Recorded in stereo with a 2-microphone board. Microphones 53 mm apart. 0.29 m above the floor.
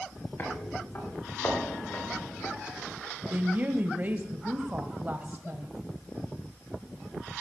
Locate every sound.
0.4 s footsteps: 45° left (ahead or behind), 7 m
3.3 s a woman speaking: 35° right (ahead or behind), 1.5 m